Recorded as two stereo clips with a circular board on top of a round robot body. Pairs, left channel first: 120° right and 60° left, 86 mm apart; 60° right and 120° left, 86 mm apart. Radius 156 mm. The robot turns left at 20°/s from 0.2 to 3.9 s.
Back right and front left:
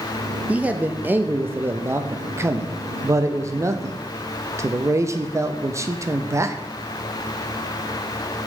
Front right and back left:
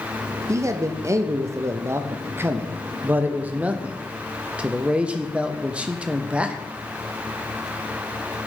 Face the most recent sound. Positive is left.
turn(degrees=55)